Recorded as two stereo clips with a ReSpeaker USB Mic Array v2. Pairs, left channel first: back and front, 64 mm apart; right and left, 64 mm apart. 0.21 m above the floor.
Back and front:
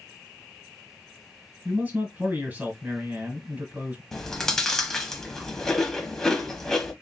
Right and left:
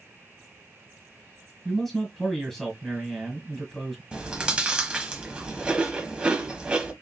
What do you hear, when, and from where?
1.6 s a man speaking: 10° right, 1.6 m
4.1 s chewing: 115° left, 0.8 m